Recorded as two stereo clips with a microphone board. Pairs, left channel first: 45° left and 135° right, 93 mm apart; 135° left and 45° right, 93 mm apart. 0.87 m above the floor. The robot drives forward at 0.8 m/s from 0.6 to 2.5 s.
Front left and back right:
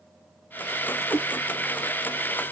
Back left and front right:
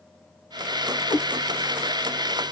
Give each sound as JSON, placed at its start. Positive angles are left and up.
{"t": 1.1, "sound": "a cat meowing", "azimuth_deg": 155, "distance_m": 1.3}